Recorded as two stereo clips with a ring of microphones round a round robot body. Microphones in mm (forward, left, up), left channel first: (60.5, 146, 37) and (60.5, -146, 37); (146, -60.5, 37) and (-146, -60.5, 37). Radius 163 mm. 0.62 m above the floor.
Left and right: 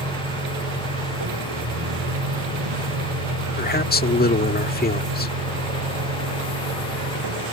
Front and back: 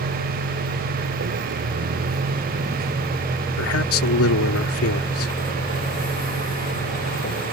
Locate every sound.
0.0 s a vehicle: 145° right; by 7.5 s 60° right
3.6 s a man speaking: 35° left